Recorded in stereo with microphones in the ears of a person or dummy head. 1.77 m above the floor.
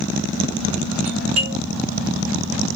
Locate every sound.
1.1 s a doorbell: 40° right (ahead or behind), 4.5 m